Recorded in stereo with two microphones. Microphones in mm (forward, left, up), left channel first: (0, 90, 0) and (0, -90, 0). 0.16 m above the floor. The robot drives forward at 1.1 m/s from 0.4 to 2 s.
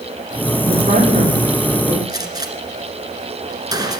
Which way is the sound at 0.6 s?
40° right (ahead or behind).